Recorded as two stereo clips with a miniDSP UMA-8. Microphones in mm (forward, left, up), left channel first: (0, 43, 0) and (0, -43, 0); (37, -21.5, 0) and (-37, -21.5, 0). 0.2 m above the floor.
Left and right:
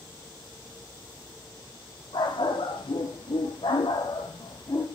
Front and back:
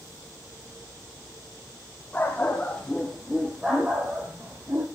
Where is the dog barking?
70° left, 3.5 m; by 4.8 s 135° left, 3 m.